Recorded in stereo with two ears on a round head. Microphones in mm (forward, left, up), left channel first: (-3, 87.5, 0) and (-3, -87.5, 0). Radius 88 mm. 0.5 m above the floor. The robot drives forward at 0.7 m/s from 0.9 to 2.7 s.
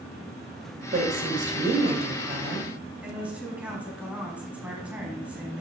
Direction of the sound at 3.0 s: 5° right (ahead or behind).